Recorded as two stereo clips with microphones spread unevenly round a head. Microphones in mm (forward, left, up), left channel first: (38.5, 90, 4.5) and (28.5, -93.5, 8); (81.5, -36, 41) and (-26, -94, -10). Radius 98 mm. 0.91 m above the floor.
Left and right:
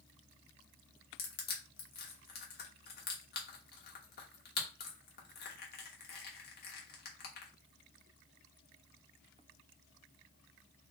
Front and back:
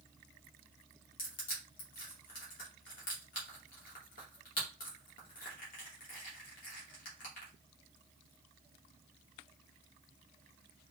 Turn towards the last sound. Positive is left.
turn(degrees=50)